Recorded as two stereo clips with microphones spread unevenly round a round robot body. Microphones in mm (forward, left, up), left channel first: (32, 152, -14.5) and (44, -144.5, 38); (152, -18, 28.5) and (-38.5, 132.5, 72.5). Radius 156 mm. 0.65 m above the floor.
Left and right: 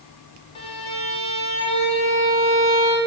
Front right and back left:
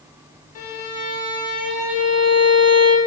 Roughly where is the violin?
Ahead.